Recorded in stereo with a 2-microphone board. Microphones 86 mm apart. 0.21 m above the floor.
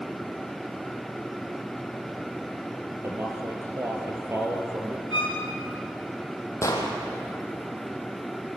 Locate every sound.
3.0 s a man speaking: 30° right (ahead or behind), 4 m
5.1 s a violin: 65° left (ahead or behind), 7 m
6.6 s an explosion: 35° left (ahead or behind), 4 m